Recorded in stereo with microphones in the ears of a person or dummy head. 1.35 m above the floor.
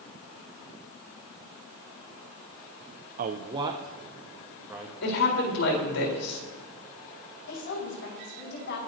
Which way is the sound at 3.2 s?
40° right (ahead or behind).